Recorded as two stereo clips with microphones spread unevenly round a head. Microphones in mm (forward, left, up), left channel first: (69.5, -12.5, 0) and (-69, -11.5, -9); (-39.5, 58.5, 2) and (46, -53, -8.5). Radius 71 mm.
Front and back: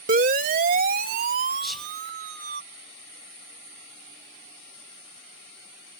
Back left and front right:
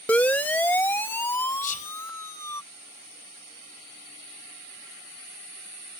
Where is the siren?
150° right; by 2.6 s 160° right.